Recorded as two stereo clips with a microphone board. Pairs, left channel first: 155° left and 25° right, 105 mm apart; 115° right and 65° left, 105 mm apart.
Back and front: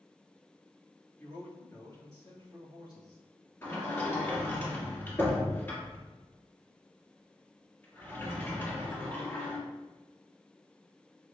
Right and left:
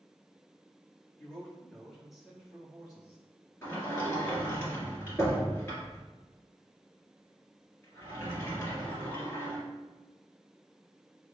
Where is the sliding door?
160° right, 1.8 m.